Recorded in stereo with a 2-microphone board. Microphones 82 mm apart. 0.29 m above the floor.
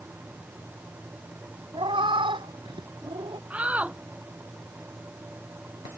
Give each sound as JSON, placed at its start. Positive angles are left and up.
{"t": 1.7, "sound": "a cat meowing", "side_deg": -90}
{"t": 3.5, "sound": "a shout", "side_deg": -15}